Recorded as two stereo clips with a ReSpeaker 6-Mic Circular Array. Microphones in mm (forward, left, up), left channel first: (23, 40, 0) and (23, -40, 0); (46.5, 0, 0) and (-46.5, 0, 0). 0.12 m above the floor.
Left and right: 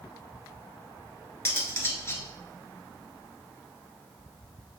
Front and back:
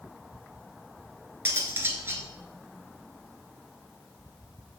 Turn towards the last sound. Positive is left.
turn(degrees=130)